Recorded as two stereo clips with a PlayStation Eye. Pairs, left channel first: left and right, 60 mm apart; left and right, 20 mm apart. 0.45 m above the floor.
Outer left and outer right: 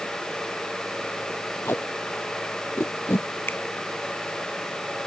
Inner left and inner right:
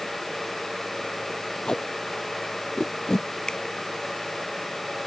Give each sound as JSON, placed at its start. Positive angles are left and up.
{"t": 1.6, "sound": "tape being pulled", "side_deg": 40}
{"t": 3.5, "sound": "a finger snap", "side_deg": 40}